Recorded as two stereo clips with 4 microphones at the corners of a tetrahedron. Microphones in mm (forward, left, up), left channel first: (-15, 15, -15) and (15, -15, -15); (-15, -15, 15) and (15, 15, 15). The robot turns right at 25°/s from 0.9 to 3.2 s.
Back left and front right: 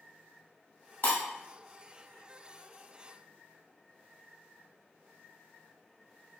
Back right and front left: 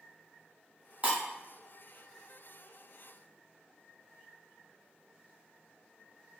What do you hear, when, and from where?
1.0 s breaking glass: 95° left, 1.3 m; by 1.2 s 100° left, 1.3 m